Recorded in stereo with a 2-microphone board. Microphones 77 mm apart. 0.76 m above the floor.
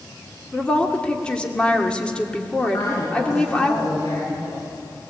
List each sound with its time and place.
0.5 s a woman speaking: 15° left (ahead or behind), 2 m
2.7 s a woman speaking: 60° left (ahead or behind), 9.5 m